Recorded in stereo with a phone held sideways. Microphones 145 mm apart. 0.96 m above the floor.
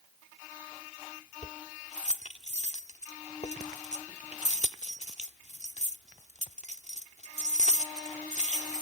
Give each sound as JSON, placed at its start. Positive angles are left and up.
{"t": 1.4, "sound": "keys jangling", "side_deg": 55}